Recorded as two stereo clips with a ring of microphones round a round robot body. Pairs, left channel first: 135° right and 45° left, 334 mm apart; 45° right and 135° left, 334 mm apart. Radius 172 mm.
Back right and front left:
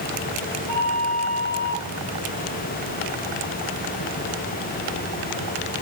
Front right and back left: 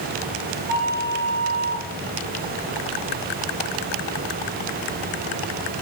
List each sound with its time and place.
0.7 s a flute: 75° left, 2 m